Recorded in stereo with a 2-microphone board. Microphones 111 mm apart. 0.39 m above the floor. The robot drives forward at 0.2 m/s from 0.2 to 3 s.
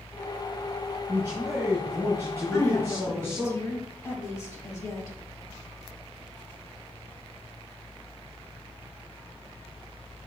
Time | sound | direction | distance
1.1 | a man speaking | 25° right (ahead or behind) | 2.5 m
2.5 | a woman speaking | 25° left (ahead or behind) | 2 m